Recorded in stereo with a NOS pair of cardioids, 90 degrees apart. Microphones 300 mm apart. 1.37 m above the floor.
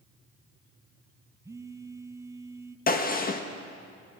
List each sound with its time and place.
1.4 s a phone buzzing: 10° right, 0.7 m
2.9 s a gunshot: 30° left, 1.5 m